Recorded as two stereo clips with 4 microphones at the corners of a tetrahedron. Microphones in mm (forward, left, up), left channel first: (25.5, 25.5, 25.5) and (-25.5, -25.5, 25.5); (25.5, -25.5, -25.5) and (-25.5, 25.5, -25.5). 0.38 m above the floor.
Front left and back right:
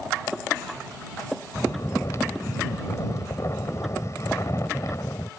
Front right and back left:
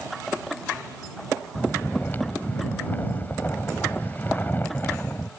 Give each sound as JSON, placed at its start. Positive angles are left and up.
{"t": 1.6, "sound": "snoring", "azimuth_deg": 10}